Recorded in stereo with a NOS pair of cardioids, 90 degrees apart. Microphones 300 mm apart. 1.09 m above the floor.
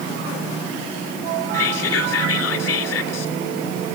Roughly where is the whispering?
Ahead left.